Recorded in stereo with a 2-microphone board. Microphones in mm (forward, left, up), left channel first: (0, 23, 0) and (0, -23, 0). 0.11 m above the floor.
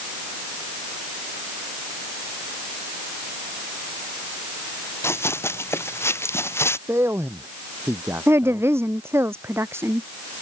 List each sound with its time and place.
5.0 s running footsteps: 70° left (ahead or behind)
6.9 s a man speaking: 65° right (ahead or behind)
8.3 s a woman speaking: 65° right (ahead or behind)